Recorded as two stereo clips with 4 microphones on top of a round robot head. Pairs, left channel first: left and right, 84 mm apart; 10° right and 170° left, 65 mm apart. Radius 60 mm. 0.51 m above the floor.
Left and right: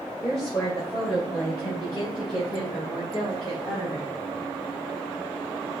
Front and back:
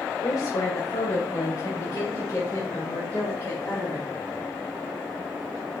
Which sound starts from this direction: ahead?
A woman speaking, at 0.2 s.